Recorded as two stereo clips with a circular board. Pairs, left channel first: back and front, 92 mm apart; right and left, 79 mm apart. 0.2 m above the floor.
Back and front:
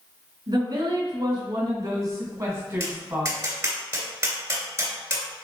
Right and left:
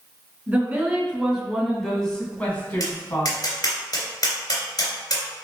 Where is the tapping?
60° right, 2.5 m.